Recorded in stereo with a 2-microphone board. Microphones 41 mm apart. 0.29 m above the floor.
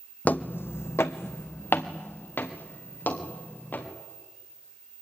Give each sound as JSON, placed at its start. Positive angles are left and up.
{"t": 0.2, "sound": "footsteps", "side_deg": 40, "distance_m": 0.8}